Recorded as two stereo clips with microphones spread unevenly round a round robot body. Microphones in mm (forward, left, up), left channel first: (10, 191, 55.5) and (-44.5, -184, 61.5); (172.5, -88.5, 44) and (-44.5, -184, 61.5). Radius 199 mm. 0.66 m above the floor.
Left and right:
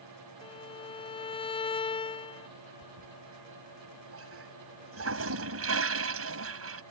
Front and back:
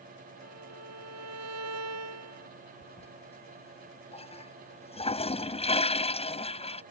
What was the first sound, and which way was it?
A violin, 160° left.